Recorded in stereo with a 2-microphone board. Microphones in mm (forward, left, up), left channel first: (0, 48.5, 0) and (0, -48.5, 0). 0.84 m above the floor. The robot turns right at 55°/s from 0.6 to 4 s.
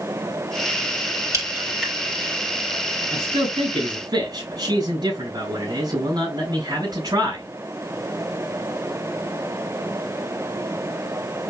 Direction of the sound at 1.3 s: 30° right (ahead or behind).